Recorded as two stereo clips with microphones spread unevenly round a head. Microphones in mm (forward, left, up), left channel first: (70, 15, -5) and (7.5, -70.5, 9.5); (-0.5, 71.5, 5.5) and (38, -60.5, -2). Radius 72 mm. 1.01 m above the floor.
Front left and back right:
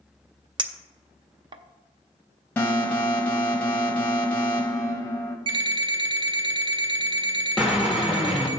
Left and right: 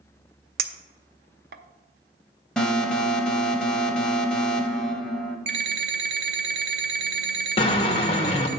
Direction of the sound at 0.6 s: 95° right.